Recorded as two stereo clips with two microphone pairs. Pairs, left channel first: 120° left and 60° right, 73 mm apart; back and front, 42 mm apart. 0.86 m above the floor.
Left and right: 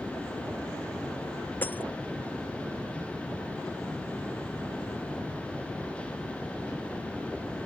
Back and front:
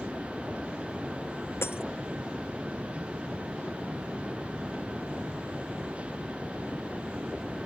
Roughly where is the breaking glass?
Behind.